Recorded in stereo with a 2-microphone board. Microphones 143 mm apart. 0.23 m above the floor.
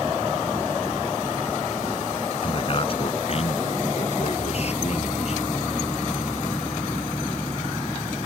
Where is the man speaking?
40° left (ahead or behind); by 5.4 s 50° left (ahead or behind).